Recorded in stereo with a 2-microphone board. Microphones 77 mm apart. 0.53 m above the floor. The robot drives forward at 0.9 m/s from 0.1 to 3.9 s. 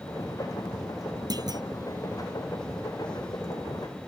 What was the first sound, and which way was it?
A clunk, 60° right (ahead or behind).